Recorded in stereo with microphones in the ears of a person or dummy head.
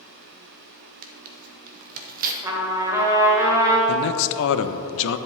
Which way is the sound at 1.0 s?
45° right (ahead or behind).